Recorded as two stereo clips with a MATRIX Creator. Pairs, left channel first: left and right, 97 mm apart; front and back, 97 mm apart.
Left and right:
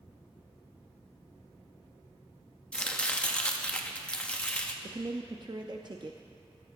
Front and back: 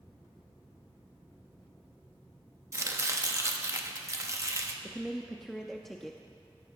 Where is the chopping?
160° left, 0.9 m.